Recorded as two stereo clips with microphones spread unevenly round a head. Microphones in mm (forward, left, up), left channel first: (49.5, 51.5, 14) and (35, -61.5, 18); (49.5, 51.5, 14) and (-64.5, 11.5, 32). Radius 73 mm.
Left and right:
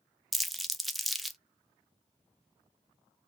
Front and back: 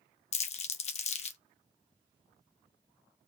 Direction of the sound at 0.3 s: 5° right.